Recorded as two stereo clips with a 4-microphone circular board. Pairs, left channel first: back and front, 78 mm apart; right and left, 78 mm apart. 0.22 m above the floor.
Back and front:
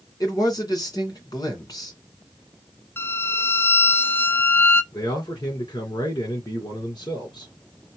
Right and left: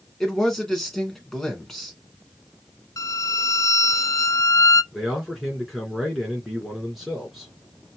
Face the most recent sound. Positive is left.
turn(degrees=180)